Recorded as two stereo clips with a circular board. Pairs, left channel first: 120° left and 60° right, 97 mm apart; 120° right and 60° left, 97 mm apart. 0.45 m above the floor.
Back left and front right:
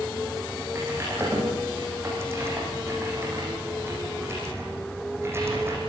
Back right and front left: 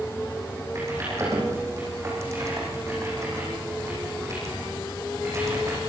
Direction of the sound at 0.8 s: 5° left.